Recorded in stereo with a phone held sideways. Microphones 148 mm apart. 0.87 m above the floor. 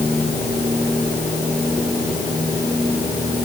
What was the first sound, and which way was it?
Only background noise.